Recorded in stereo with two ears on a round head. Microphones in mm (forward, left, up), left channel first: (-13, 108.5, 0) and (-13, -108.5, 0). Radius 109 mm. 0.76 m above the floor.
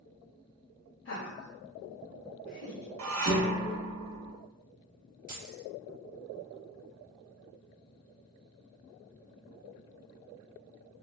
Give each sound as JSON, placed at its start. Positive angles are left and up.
{"t": 1.1, "sound": "laughter", "side_deg": 50, "distance_m": 0.7}
{"t": 3.0, "sound": "dishes clattering", "side_deg": -60, "distance_m": 0.6}
{"t": 5.3, "sound": "keys jangling", "side_deg": -40, "distance_m": 0.9}